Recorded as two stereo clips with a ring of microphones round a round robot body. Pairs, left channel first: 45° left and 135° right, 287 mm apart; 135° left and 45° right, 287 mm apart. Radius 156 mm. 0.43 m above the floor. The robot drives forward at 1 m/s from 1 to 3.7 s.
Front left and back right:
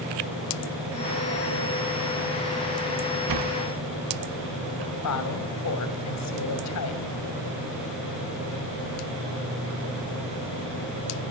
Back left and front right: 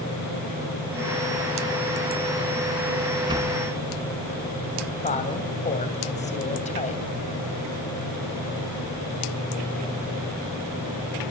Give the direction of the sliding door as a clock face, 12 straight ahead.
4 o'clock.